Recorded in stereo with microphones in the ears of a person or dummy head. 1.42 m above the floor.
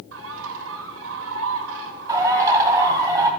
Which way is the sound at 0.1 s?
70° right (ahead or behind).